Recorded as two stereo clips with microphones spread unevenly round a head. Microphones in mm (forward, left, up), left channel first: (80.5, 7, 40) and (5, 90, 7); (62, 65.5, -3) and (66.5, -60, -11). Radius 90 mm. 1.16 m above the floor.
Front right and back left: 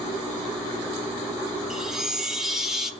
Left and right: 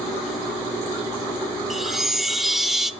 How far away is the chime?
About 0.7 m.